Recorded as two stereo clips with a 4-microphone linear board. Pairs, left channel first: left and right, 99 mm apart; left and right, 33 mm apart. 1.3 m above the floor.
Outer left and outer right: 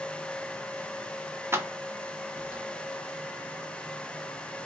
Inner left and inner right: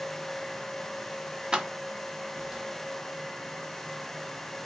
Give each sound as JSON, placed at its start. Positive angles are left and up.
{"t": 1.5, "sound": "keys jangling", "side_deg": -25, "distance_m": 0.6}